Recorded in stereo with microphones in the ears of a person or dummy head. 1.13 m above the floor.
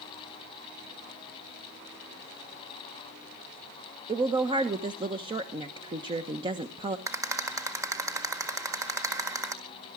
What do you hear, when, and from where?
4.1 s a woman speaking: 20° right (ahead or behind), 1.0 m
7.1 s a rattle: 15° right (ahead or behind), 1.6 m